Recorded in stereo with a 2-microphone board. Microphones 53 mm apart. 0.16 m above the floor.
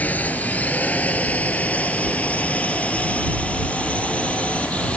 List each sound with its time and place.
0.0 s a drone: 30° left (ahead or behind); by 5.0 s 20° left (ahead or behind)